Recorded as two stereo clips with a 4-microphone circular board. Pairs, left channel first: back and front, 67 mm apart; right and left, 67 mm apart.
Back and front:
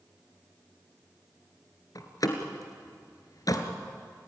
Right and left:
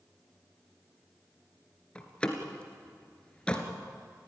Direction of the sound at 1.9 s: 165° right.